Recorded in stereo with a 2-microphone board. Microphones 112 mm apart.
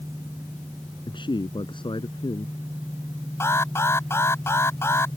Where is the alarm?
25° left (ahead or behind).